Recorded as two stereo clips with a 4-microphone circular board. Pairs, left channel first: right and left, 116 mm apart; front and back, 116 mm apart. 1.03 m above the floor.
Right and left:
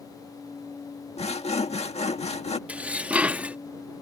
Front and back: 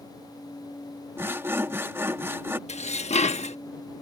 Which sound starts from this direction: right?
Sawing, at 1.2 s.